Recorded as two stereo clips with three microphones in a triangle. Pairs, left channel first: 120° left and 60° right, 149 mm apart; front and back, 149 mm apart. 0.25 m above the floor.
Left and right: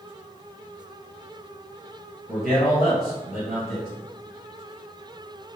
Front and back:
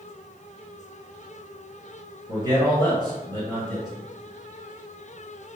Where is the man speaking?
140° right, 2.0 m.